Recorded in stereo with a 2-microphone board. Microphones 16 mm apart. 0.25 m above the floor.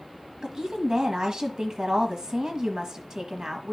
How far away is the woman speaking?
About 1.3 m.